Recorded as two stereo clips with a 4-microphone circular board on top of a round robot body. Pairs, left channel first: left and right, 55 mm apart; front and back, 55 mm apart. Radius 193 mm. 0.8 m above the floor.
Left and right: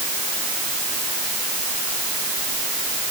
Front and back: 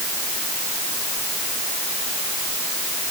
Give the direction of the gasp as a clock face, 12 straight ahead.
I don't hear a gasp.